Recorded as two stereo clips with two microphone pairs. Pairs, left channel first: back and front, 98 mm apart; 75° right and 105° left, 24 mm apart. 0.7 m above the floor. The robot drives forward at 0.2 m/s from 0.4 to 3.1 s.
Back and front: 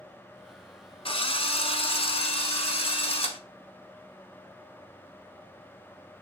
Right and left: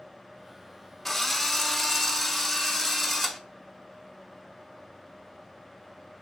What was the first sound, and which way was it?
A drill, 155° right.